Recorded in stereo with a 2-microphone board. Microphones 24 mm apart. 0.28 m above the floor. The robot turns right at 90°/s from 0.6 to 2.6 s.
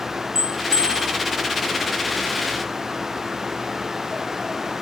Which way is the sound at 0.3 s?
145° right.